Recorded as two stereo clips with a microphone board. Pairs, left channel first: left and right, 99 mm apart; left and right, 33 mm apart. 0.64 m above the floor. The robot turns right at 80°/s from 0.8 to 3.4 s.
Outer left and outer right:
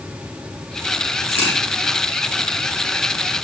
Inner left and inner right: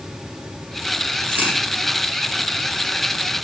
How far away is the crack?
About 3.5 m.